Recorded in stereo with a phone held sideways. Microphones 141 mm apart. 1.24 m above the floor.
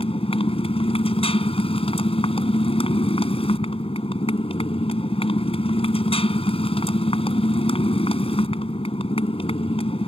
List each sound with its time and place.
0.0 s a motorcycle: 40° left (ahead or behind)